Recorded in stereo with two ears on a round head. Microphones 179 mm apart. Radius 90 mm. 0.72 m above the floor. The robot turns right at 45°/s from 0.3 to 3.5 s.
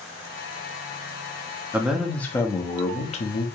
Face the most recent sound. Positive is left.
turn(degrees=70)